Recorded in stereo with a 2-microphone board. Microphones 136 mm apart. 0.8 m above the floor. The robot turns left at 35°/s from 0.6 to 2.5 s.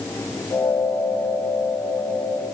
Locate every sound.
Only background noise.